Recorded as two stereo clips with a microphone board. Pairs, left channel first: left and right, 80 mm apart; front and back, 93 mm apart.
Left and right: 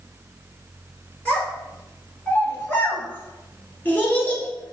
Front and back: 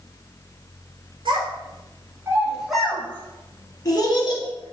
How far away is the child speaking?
About 1.1 m.